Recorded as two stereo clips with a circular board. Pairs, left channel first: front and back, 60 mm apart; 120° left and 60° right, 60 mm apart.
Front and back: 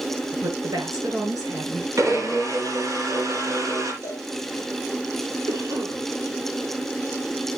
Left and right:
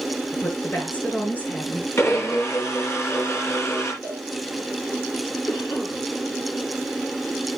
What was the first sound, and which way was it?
A woman speaking, 175° right.